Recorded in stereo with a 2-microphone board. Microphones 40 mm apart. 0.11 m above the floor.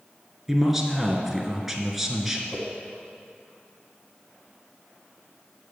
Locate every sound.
0.5 s a man speaking: 5° right (ahead or behind), 1.2 m
2.5 s a whoosh: 35° left (ahead or behind), 2.5 m